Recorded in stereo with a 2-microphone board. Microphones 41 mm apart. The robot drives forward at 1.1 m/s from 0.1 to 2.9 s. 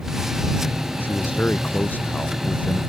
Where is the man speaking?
50° left (ahead or behind); by 2.8 s 45° left (ahead or behind).